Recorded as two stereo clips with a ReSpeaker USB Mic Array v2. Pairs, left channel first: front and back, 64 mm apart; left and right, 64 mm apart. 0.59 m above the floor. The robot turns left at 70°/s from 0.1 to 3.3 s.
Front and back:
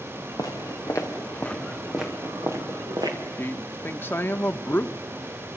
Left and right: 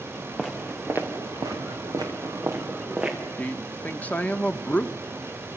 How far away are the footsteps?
About 3 m.